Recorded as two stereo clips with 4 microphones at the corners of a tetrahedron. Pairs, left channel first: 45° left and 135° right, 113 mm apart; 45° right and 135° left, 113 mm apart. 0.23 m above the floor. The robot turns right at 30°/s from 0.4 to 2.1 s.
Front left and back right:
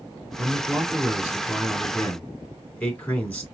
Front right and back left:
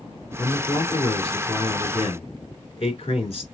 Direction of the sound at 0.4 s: 80° right.